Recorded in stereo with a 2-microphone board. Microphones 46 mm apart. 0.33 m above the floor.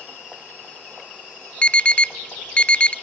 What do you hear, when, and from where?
1.6 s an alarm: 25° left (ahead or behind), 0.6 m